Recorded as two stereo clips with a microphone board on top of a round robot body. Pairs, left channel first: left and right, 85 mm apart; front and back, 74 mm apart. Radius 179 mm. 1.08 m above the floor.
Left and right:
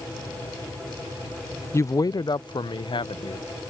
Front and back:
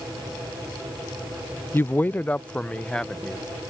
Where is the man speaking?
45° left; by 3.4 s 80° left.